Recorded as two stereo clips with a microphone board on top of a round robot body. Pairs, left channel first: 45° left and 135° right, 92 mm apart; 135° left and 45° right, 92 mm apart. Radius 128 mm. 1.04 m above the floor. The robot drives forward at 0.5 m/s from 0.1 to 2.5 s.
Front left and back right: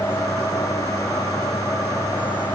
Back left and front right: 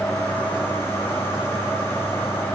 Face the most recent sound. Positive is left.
No sound to turn to.